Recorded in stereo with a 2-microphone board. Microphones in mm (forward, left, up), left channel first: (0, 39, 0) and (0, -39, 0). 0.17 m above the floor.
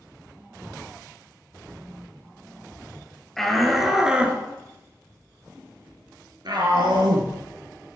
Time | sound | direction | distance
3.4 | a shout | 5° left (ahead or behind) | 3.5 m